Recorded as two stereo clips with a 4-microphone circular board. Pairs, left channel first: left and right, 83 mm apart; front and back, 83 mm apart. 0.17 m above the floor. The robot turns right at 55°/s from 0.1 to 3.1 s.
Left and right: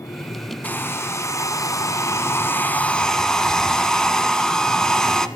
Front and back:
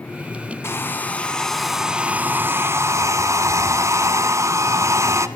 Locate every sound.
0.6 s a hair dryer: 35° left, 1.4 m; by 5.3 s 170° left, 1.4 m